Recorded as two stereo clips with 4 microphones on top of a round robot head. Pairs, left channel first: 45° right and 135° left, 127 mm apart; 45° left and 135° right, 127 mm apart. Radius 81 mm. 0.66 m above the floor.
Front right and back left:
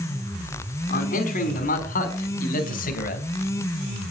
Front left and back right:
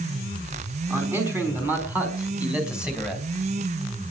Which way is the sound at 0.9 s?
65° right.